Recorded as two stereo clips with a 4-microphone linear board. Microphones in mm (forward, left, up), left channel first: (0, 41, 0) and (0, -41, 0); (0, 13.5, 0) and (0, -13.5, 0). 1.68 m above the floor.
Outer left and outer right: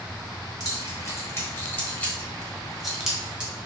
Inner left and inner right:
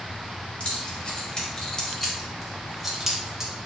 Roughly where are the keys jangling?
Left.